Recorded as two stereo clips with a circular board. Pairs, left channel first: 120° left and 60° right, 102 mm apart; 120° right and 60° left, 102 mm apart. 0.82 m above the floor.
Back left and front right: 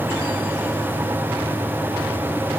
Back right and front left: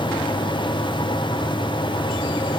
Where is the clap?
No clap in this recording.